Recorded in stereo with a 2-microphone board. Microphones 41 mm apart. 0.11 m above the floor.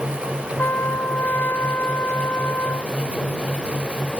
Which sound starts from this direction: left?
A trumpet, at 0.6 s.